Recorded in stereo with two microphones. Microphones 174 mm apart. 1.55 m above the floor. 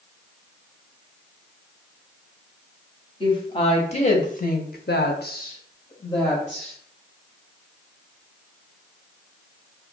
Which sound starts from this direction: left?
A woman speaking, at 3.2 s.